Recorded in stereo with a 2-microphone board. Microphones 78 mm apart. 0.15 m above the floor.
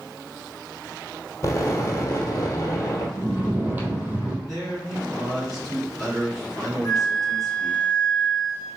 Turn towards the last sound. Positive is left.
turn(degrees=45)  # may be behind; listen again after turning